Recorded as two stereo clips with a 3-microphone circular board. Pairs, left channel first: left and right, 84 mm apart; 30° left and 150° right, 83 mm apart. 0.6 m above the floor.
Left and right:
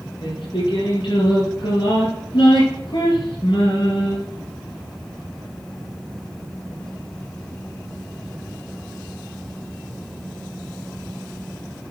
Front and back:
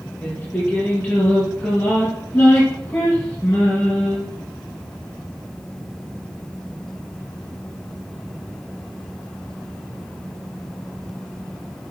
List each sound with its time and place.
0.2 s singing: 95° left, 5 m